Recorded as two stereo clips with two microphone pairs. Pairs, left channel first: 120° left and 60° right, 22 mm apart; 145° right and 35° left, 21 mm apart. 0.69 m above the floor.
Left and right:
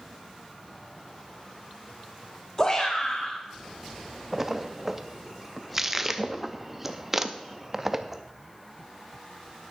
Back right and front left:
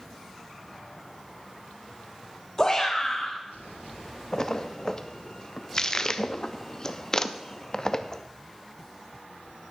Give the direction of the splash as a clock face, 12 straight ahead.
4 o'clock.